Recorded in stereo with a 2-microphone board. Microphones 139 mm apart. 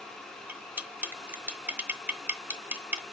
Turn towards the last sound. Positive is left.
turn(degrees=-15)  # may be behind; listen again after turning